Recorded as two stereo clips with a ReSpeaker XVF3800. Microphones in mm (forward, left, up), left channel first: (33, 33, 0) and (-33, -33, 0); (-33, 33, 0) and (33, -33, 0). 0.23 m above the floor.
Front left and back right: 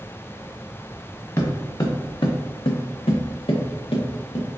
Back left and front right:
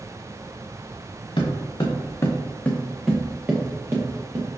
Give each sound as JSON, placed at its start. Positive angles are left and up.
{"t": 1.4, "sound": "footsteps", "azimuth_deg": 105, "distance_m": 1.3}